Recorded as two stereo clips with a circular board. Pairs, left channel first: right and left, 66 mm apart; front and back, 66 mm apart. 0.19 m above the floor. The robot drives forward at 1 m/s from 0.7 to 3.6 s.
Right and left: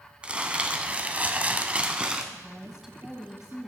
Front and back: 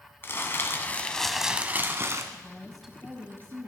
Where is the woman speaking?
15° left, 1.1 m; by 3.7 s 170° left, 1.3 m.